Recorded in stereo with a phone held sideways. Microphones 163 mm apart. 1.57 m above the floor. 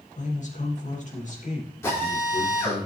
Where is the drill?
15° left (ahead or behind), 5.5 m.